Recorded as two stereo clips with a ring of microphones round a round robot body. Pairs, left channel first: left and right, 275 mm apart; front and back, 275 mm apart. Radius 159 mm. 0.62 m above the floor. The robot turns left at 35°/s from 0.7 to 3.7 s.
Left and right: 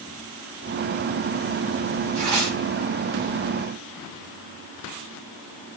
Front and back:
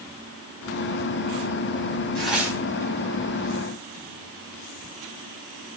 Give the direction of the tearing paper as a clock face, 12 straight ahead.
3 o'clock.